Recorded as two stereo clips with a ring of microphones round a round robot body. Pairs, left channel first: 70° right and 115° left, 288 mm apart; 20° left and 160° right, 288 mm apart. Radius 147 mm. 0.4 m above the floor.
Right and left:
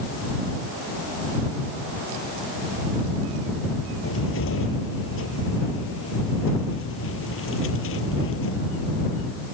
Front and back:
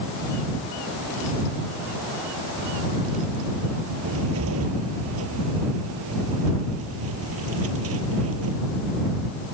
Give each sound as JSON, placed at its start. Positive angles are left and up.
{"t": 4.0, "sound": "a cupboard door", "azimuth_deg": -115}